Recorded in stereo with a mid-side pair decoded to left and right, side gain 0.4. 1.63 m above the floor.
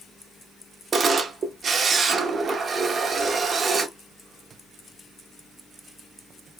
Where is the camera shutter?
50° right, 0.7 m.